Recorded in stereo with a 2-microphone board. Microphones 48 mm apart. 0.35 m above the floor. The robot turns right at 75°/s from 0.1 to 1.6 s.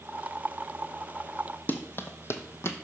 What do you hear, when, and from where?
1.7 s running footsteps: 45° left (ahead or behind), 0.9 m; by 2.7 s 70° left (ahead or behind), 0.9 m